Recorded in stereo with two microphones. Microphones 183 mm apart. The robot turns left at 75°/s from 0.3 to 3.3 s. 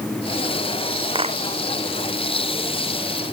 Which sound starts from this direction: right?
A clap, at 1.1 s.